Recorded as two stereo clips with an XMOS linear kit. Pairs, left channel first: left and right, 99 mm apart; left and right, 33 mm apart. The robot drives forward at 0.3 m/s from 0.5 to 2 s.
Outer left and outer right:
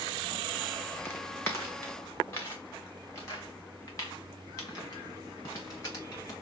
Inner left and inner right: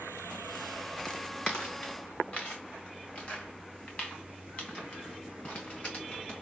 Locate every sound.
1.1 s footsteps: 25° left (ahead or behind), 1.0 m; by 6.3 s 40° left (ahead or behind), 4.5 m